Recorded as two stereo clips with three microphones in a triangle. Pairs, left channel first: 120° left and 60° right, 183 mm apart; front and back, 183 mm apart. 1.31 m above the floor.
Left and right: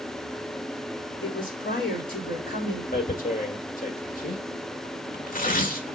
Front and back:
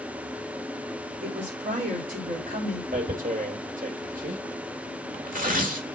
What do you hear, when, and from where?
1.2 s a woman speaking: 145° left, 3.5 m
2.9 s tearing paper: 150° left, 1.6 m